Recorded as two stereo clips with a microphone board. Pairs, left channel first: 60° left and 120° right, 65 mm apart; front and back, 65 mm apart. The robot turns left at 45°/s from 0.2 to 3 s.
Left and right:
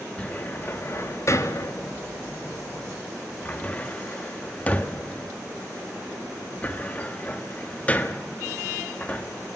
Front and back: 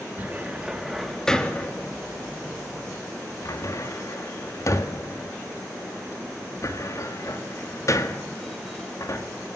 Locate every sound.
0.2 s a cupboard door: 125° left, 1.6 m; by 9.3 s straight ahead, 1.6 m